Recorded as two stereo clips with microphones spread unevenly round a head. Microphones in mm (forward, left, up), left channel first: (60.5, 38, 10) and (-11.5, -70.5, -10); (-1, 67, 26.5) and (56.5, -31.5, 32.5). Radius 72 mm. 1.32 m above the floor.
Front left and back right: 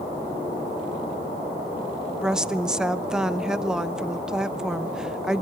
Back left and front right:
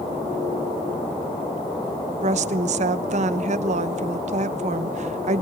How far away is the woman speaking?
About 0.9 m.